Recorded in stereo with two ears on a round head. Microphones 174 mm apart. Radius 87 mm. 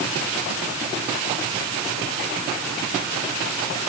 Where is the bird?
No bird in this recording.